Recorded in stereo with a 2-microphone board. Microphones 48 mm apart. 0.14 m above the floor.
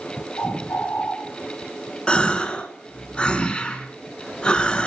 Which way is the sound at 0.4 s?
75° left (ahead or behind).